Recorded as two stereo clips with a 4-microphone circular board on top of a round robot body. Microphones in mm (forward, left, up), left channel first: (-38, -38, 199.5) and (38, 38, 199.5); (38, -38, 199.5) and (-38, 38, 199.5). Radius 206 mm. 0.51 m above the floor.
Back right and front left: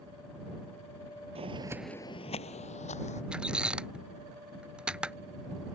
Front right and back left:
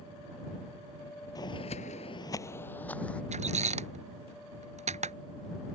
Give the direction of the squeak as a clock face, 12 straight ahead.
8 o'clock.